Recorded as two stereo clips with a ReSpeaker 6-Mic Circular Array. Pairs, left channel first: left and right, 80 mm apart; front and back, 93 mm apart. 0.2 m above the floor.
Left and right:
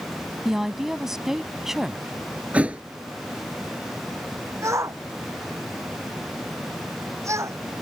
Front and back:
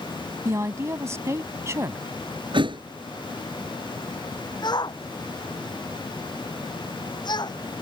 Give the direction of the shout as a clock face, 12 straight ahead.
1 o'clock.